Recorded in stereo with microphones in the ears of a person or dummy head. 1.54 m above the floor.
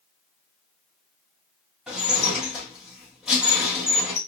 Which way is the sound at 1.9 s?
Centre (ahead or behind).